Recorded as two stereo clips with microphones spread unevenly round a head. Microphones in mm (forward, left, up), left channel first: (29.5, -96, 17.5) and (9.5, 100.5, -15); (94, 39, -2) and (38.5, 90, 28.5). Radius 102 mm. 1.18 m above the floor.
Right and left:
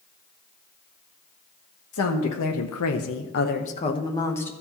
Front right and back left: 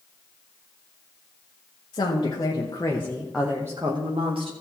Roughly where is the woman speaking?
Right.